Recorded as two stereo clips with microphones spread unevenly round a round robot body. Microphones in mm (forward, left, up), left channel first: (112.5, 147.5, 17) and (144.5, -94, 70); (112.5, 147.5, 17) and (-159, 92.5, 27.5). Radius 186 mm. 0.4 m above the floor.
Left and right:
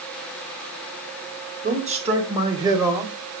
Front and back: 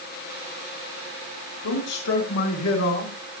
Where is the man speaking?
20° right, 3.5 m; by 3.1 s 10° left, 2.5 m.